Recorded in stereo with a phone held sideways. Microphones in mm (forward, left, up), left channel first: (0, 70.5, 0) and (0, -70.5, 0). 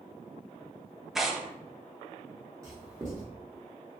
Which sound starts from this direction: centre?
Tearing paper, at 1.1 s.